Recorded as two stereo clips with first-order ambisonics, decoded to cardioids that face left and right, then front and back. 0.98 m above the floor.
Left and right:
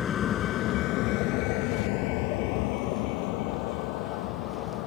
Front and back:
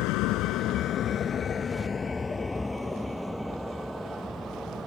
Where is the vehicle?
25° left; by 4.9 s 100° left.